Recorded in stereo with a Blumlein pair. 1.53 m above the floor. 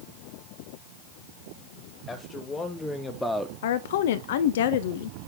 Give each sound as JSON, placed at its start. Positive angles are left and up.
{"t": 2.1, "sound": "a man speaking", "azimuth_deg": 15, "distance_m": 2.5}
{"t": 3.6, "sound": "a woman speaking", "azimuth_deg": 55, "distance_m": 0.5}